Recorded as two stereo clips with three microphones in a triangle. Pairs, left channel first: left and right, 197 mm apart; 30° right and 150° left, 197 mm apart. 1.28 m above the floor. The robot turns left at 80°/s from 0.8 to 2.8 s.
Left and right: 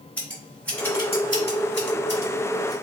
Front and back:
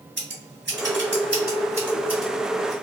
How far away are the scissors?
About 1.6 m.